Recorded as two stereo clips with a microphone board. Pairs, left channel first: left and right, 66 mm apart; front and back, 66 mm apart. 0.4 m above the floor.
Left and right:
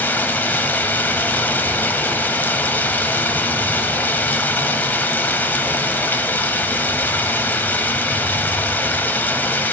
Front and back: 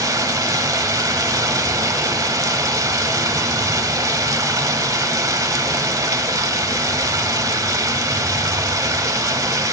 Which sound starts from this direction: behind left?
Running water, at 0.0 s.